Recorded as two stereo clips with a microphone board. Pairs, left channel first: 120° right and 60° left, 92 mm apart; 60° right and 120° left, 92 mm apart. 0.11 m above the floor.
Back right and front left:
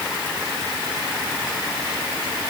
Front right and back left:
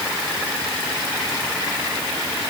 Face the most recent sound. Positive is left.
No sound to turn to.